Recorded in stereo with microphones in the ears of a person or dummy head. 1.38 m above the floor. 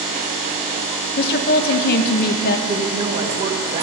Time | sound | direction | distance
1.2 | a woman speaking | 50° left (ahead or behind) | 0.9 m
2.7 | a woman speaking | 35° right (ahead or behind) | 1.8 m